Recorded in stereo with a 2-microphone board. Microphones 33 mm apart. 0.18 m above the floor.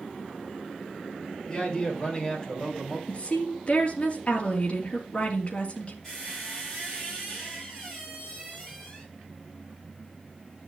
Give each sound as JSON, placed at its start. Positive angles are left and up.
{"t": 1.5, "sound": "a man speaking", "side_deg": 25, "distance_m": 4.5}
{"t": 3.1, "sound": "a woman speaking", "side_deg": 40, "distance_m": 3.5}
{"t": 6.0, "sound": "a squeak", "side_deg": 10, "distance_m": 7.5}